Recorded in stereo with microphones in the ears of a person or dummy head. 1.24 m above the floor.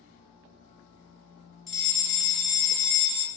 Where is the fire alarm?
Centre (ahead or behind), 1.1 m.